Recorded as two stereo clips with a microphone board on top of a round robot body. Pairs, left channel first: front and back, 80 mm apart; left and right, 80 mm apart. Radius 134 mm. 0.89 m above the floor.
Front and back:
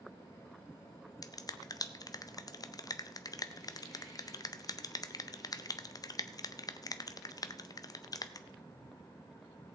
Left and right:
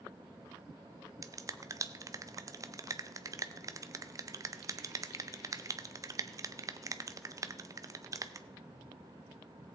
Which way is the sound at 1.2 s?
40° right.